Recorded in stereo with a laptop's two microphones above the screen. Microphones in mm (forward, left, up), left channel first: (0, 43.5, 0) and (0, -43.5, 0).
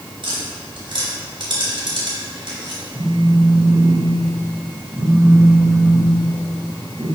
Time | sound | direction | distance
0.2 | tapping | 65° right (ahead or behind) | 1.9 m
2.9 | a phone buzzing | 35° right (ahead or behind) | 1.6 m